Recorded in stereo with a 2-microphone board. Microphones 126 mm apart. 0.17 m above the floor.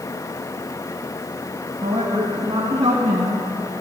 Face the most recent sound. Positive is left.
turn(degrees=-60)  # may be behind; listen again after turning